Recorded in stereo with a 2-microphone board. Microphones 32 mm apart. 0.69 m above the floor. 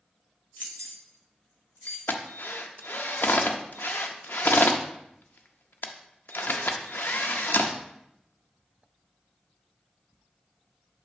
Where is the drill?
80° left, 0.5 m.